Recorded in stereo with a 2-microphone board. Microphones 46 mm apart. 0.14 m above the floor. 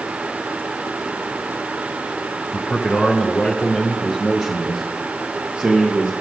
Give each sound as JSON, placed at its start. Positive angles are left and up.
{"t": 2.5, "sound": "a man speaking", "side_deg": 30, "distance_m": 1.4}